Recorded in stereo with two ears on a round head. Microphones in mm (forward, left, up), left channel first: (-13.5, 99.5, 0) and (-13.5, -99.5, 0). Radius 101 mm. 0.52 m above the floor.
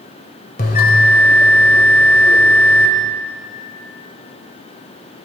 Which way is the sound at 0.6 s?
40° left (ahead or behind).